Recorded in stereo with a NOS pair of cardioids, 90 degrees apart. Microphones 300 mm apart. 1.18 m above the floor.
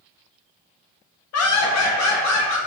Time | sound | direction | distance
1.3 | laughter | 55° left | 0.7 m